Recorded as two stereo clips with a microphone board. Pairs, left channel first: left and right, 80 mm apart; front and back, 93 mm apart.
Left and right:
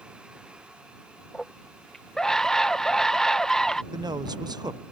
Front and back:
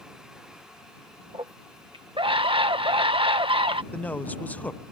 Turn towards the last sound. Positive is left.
turn(degrees=-70)